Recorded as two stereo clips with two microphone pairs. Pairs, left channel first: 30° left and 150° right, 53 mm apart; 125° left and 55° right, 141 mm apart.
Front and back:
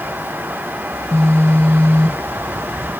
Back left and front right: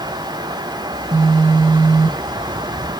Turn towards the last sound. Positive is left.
turn(degrees=-5)